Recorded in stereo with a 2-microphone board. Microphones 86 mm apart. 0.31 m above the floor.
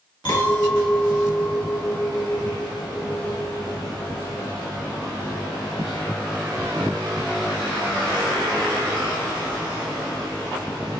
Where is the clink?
60° left (ahead or behind), 1.2 m.